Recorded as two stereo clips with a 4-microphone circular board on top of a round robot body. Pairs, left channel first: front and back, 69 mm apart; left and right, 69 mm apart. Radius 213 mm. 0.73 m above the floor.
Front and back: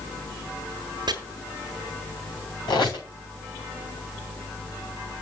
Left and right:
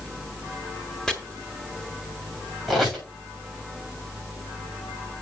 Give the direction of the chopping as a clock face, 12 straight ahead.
6 o'clock.